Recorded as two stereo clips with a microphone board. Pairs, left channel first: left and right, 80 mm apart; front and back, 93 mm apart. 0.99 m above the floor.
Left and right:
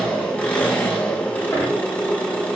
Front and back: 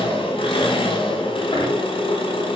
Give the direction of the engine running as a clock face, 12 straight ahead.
11 o'clock.